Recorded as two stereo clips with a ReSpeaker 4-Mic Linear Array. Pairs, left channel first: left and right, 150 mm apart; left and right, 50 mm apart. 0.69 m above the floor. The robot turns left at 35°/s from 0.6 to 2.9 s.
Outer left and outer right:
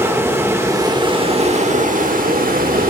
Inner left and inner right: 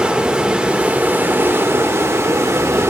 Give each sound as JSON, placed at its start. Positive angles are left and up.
{"t": 0.0, "sound": "running water", "azimuth_deg": -20, "distance_m": 1.6}